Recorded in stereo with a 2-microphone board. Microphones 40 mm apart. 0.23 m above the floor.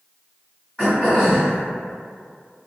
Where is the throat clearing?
20° left (ahead or behind), 1.4 m.